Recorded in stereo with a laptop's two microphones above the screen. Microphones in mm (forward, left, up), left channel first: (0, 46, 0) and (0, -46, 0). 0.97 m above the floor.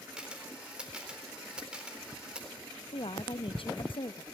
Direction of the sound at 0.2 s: 10° right (ahead or behind).